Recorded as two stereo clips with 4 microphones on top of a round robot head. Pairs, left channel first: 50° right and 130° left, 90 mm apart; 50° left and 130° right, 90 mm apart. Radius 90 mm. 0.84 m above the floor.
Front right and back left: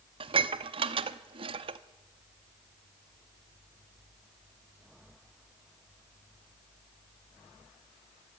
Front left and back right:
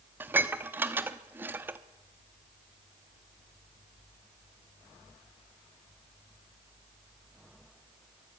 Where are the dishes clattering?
160° left, 0.8 m.